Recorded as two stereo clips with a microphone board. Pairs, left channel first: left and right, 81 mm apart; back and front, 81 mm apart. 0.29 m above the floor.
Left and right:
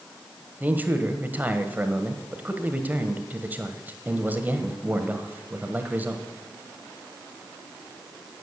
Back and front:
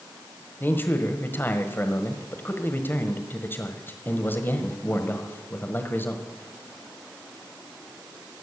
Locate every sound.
0.6 s a man speaking: 140° right, 1.4 m